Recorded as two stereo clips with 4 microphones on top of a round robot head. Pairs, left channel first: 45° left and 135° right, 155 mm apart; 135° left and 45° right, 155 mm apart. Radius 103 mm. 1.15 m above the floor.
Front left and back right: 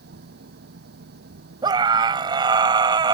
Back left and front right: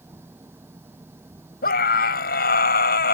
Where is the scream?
160° left.